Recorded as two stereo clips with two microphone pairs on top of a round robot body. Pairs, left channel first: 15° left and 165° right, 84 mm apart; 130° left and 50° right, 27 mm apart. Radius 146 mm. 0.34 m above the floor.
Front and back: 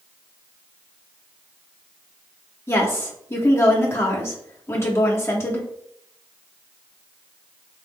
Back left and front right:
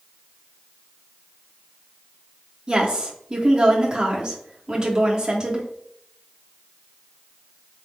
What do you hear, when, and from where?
2.7 s a woman speaking: 10° right, 1.1 m